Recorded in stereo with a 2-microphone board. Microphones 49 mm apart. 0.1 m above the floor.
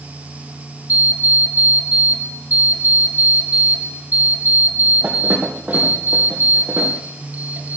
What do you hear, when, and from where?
0.9 s an alarm clock: 35° right (ahead or behind), 2 m